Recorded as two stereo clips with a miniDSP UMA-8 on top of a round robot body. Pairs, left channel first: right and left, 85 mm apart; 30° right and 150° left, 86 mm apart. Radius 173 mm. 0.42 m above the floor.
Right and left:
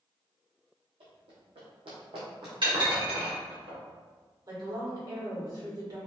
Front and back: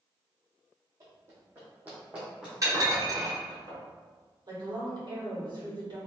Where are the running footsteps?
95° left, 1.6 m; by 2.9 s 55° left, 1.2 m.